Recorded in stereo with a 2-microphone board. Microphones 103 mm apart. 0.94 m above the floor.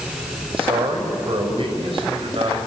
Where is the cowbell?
I don't hear a cowbell.